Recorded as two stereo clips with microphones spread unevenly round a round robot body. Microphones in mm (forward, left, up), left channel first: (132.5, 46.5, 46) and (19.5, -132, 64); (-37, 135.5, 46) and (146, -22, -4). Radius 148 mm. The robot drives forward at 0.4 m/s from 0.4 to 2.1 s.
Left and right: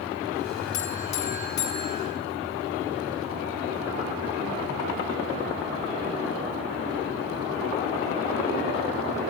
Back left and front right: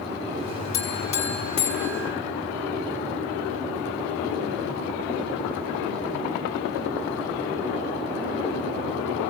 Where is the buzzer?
125° left, 5 m; by 2.1 s 130° left, 5.5 m.